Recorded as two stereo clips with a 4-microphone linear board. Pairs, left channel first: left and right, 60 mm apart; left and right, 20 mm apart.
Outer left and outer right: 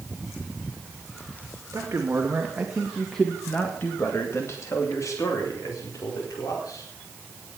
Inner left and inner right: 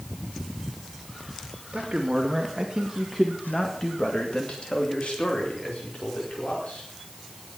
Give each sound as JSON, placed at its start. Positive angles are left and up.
{"t": 1.7, "sound": "a man speaking", "side_deg": -45, "distance_m": 2.5}